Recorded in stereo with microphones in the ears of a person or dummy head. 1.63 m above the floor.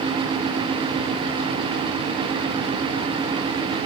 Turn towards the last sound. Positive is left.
No sound to turn to.